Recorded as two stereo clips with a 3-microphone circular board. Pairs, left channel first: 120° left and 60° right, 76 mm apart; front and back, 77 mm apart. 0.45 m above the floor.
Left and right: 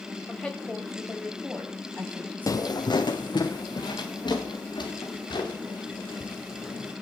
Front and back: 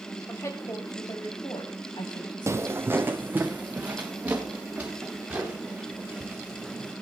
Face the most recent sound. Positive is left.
turn(degrees=105)